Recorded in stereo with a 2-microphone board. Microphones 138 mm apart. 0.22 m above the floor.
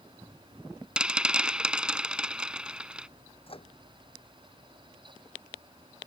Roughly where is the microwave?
Left.